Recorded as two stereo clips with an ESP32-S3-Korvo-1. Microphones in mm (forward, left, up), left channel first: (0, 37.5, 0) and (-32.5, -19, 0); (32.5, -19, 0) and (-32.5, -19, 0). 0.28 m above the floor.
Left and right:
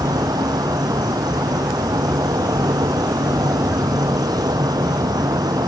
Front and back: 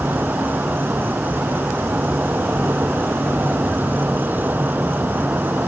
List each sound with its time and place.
0.0 s an insect: 115° right